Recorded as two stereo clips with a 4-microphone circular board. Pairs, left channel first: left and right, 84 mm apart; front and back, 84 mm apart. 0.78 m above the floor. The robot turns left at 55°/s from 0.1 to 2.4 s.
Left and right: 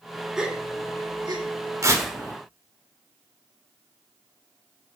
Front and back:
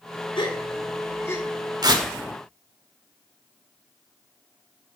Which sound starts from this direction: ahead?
A gasp, at 0.4 s.